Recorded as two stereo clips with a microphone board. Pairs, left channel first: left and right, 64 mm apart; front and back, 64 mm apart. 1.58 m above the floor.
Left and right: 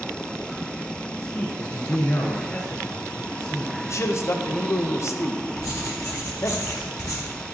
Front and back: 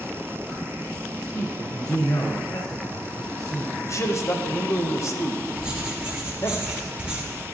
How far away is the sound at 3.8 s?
About 0.9 m.